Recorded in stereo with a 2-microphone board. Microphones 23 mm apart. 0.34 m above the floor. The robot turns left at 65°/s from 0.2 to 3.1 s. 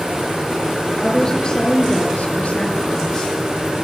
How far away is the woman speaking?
About 7 m.